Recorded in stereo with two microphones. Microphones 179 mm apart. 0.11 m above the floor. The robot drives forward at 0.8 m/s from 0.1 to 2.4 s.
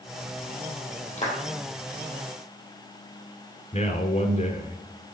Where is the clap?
40° left (ahead or behind), 3.5 m.